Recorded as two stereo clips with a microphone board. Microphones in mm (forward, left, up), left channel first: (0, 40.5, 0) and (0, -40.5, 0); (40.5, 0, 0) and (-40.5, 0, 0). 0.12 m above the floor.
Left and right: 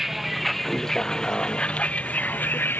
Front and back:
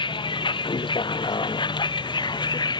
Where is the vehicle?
5° right; by 2.8 s 25° left.